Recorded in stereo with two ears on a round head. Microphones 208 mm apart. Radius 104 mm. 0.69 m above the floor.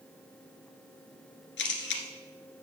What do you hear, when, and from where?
1.6 s a camera shutter: 55° left (ahead or behind), 1.7 m